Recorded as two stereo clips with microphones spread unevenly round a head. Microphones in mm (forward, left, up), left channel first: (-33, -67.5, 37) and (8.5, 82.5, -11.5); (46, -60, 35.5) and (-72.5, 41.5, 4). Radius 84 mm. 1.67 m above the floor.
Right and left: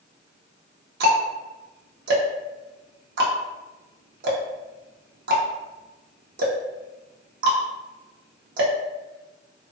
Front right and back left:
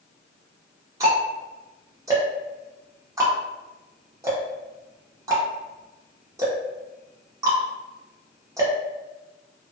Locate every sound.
1.0 s ticking: 70° left, 0.6 m